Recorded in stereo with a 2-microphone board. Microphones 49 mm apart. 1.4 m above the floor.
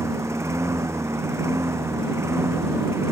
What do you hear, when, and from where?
0.0 s a lawn mower: 80° right; by 3.1 s 70° right (ahead or behind)